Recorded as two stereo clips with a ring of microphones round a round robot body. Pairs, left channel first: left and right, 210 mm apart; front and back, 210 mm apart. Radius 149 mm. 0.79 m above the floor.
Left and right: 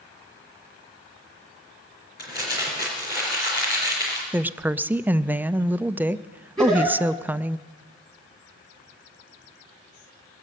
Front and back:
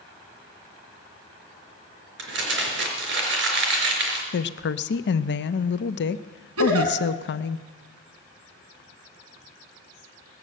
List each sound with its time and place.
2.2 s crumpling: 155° left, 4 m
4.3 s a woman speaking: 10° right, 0.5 m
6.6 s a giggle: straight behind, 2.5 m